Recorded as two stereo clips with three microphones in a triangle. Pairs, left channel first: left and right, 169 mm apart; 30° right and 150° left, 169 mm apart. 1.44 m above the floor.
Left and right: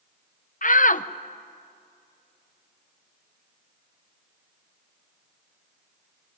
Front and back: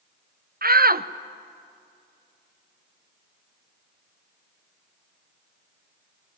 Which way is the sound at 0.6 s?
125° left.